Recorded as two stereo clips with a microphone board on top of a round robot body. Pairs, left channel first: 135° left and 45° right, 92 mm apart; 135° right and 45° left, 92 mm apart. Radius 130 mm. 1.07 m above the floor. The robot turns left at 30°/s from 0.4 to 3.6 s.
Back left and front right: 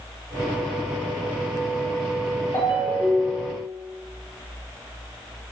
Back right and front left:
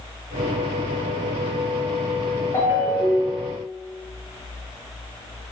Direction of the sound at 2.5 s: 175° left.